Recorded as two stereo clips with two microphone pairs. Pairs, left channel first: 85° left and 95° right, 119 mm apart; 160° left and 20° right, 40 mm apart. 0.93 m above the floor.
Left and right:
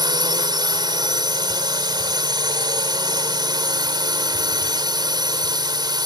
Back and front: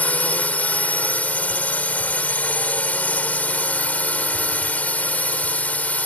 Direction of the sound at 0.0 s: 150° right.